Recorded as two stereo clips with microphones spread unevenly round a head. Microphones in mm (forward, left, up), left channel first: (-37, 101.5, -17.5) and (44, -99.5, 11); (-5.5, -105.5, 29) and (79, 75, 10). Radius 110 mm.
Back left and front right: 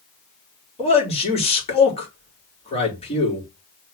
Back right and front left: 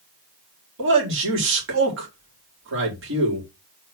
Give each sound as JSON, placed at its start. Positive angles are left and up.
{"t": 0.8, "sound": "a man speaking", "azimuth_deg": 50, "distance_m": 4.5}